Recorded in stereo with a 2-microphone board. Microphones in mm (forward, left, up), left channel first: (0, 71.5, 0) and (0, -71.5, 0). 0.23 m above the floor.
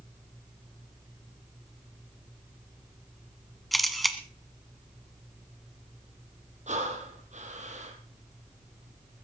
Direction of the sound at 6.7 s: 55° right (ahead or behind).